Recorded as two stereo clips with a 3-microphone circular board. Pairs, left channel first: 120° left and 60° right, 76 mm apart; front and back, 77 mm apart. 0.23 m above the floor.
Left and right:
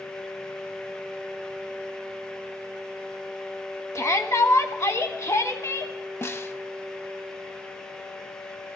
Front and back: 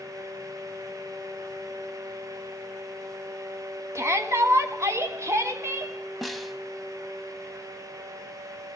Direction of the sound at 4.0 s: 150° left.